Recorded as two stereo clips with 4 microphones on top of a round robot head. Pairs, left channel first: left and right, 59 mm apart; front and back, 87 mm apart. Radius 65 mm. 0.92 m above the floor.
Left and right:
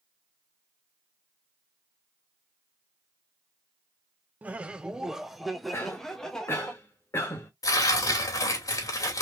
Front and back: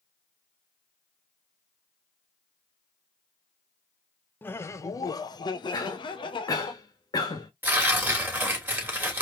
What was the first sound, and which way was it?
Laughter, 50° right.